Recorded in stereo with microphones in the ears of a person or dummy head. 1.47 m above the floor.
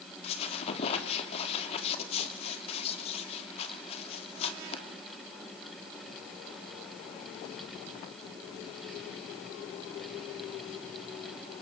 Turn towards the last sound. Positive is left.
turn(degrees=35)  # may be behind; listen again after turning